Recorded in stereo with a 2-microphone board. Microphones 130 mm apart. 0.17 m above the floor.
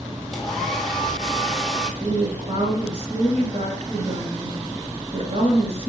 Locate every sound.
0.3 s a hair dryer: centre (ahead or behind), 0.9 m
2.0 s a woman speaking: 55° right (ahead or behind), 2 m